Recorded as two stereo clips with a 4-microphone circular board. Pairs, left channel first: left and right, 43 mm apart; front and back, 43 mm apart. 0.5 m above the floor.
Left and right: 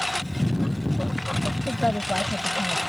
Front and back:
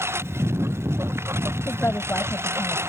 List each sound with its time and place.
0.0 s a lawn mower: straight behind
1.7 s a woman speaking: 20° left